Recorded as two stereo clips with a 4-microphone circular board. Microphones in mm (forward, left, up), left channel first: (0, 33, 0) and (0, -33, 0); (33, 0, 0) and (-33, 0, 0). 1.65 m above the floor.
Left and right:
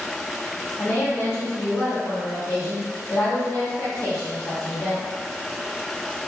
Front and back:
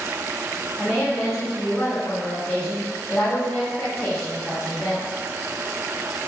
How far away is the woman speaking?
About 0.9 m.